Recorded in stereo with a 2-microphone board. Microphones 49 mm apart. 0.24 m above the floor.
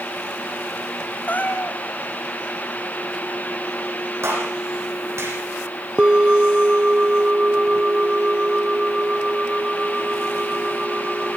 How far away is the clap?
About 9.5 m.